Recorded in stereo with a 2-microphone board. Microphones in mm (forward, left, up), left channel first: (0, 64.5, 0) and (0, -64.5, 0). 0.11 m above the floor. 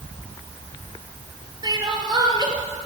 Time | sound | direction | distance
1.6 | crying | 30° right (ahead or behind) | 2 m